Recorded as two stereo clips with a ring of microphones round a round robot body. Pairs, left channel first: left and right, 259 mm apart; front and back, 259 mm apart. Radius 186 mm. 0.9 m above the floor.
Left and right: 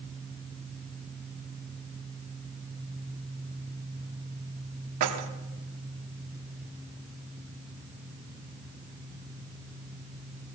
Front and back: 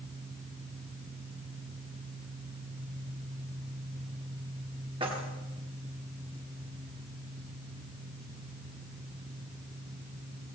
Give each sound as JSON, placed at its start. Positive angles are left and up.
{"t": 5.0, "sound": "keys jangling", "azimuth_deg": -105, "distance_m": 1.0}